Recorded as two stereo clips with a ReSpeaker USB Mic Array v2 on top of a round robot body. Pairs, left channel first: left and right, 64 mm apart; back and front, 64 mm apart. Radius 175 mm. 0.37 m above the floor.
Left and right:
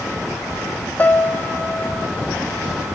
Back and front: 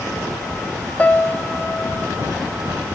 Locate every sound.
1.0 s a piano: 130° left, 1.0 m